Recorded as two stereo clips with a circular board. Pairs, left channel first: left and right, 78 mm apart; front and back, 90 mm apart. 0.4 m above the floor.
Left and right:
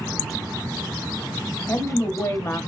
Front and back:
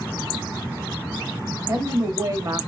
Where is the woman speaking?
140° left, 1.4 m.